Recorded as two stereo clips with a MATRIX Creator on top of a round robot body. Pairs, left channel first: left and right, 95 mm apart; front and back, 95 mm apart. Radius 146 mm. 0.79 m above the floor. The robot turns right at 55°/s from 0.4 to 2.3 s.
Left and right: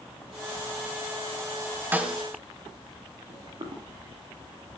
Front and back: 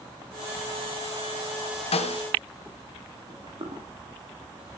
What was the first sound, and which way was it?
A snare drum, 20° right.